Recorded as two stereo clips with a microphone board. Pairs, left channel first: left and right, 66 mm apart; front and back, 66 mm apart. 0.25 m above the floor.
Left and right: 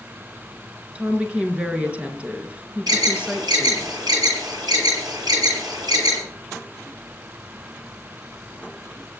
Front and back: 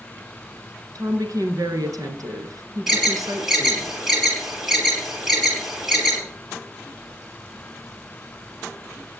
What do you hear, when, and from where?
0.9 s a woman speaking: 160° right, 3.5 m
2.9 s an alarm: 95° right, 9.5 m